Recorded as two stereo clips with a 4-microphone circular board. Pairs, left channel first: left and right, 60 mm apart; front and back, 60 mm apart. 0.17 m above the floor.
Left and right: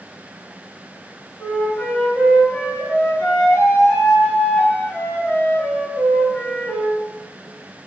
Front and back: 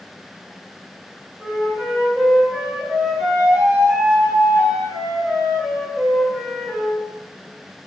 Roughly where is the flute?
Behind left.